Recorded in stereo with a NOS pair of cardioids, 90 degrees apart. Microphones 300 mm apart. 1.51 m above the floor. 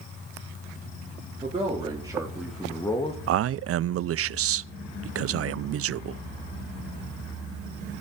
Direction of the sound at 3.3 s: 50° right.